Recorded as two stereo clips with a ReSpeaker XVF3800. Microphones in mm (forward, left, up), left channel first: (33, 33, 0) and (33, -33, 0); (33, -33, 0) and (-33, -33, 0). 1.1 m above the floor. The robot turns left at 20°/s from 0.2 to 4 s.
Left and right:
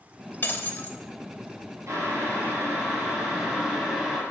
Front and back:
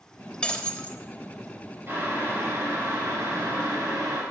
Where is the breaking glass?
60° left, 1.0 m; by 1.0 s 50° left, 1.0 m.